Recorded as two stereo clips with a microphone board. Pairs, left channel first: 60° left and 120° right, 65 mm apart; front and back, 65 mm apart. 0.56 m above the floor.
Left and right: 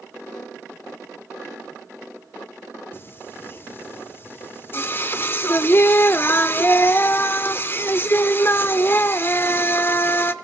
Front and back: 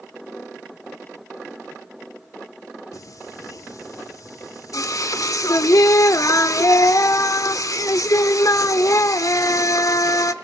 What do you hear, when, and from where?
2.9 s singing: 15° left, 1.0 m